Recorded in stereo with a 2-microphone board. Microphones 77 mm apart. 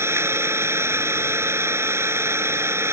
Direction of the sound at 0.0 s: 35° right (ahead or behind).